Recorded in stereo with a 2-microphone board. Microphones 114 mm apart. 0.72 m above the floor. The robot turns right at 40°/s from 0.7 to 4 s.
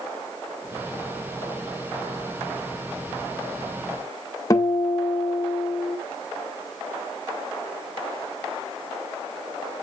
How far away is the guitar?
About 0.8 m.